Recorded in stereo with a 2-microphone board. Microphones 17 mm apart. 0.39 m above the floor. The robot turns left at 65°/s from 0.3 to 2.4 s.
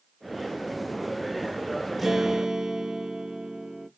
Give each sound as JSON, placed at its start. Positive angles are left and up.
{"t": 2.0, "sound": "a guitar", "side_deg": 0, "distance_m": 0.5}